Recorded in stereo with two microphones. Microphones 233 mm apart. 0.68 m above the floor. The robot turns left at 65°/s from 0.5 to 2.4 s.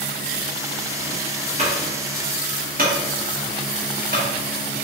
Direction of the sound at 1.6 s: 30° right (ahead or behind).